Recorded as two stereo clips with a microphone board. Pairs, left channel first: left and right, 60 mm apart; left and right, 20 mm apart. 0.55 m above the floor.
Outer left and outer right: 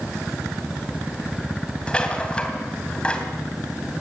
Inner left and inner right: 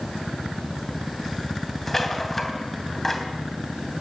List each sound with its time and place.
1.9 s a rattle: 15° left (ahead or behind), 2.5 m